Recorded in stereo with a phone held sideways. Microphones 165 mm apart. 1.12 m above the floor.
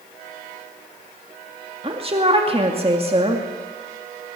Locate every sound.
1.8 s a woman speaking: 35° right (ahead or behind), 2 m